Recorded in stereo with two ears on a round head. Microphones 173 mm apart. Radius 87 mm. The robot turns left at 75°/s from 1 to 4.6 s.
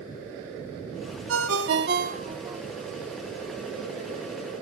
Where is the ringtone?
75° right, 1.4 m; by 2.6 s 175° right, 1.4 m.